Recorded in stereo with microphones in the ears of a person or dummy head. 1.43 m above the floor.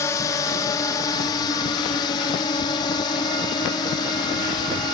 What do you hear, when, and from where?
0.0 s a drone: 20° left (ahead or behind); by 4.9 s 25° left (ahead or behind)